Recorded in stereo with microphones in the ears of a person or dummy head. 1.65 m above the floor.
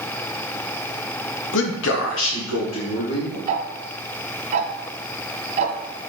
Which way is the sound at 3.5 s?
35° right (ahead or behind).